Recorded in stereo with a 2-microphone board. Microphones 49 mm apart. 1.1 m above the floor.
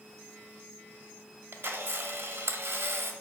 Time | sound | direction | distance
1.5 | a camera shutter | 60° right (ahead or behind) | 0.6 m